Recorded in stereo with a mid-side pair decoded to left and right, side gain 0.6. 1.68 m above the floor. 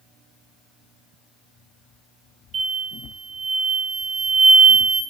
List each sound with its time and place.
2.5 s an explosion: 45° right, 3 m